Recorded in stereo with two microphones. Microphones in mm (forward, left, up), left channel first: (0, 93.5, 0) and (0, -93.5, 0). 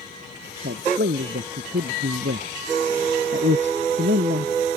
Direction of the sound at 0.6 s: 75° right (ahead or behind).